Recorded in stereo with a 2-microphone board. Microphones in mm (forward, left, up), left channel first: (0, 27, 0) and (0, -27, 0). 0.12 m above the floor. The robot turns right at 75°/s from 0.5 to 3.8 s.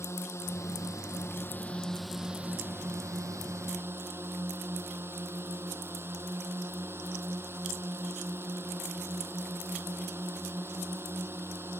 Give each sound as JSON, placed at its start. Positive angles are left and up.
{"t": 0.0, "sound": "a drone", "azimuth_deg": 65}